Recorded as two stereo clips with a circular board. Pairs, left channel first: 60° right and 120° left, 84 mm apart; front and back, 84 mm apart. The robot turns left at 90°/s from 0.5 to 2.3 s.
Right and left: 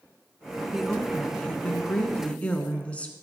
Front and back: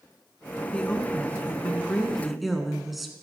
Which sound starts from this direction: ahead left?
A woman speaking, at 0.7 s.